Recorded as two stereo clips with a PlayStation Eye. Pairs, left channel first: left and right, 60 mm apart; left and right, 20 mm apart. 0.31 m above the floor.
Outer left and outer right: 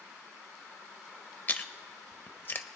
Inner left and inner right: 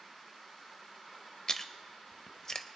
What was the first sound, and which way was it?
Chewing, 35° left (ahead or behind).